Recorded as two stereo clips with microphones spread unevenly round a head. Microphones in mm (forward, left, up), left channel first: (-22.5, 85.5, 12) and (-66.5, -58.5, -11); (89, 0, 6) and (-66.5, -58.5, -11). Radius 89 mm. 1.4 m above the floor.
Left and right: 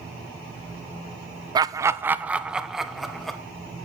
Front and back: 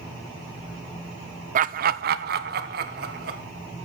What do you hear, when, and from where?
1.6 s laughter: 155° right, 0.6 m; by 3.4 s 165° left, 1.5 m